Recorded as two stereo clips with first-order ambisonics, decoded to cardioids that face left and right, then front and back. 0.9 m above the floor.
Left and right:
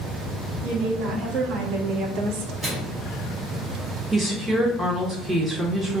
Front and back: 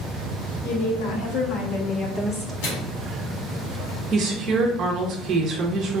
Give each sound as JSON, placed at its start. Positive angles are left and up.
{"t": 0.6, "sound": "a woman speaking", "azimuth_deg": -30, "distance_m": 1.5}
{"t": 2.6, "sound": "a microwave", "azimuth_deg": -10, "distance_m": 1.7}
{"t": 4.1, "sound": "a woman speaking", "azimuth_deg": -165, "distance_m": 0.8}